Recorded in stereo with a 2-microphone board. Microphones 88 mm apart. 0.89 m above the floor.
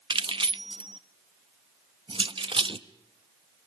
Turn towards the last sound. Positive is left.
turn(degrees=-75)  # may be behind; listen again after turning